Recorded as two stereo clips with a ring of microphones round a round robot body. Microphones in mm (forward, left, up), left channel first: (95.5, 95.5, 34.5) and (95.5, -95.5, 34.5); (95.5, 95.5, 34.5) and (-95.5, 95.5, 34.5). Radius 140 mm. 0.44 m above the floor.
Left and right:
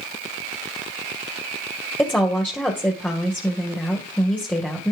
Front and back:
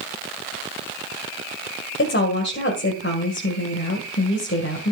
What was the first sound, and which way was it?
A woman speaking, 5° left.